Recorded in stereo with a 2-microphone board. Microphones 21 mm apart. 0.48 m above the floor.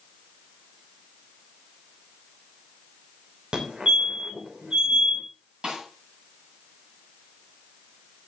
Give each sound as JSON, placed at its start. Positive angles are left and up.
{"t": 3.5, "sound": "a fire alarm", "side_deg": -50, "distance_m": 3.0}
{"t": 5.6, "sound": "a snare drum", "side_deg": -40, "distance_m": 10.0}